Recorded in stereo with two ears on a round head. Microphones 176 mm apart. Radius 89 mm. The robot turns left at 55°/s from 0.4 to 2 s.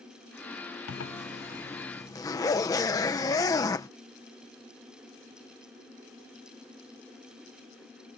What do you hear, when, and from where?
0.9 s a zipper: 80° left; by 3.9 s 15° left